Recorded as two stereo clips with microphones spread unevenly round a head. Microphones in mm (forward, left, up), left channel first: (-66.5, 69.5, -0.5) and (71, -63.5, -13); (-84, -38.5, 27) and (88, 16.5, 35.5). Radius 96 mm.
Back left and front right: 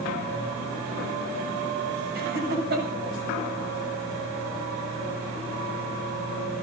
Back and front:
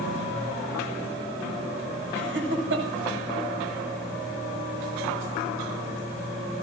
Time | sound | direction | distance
2.1 | laughter | 5° right | 7.5 m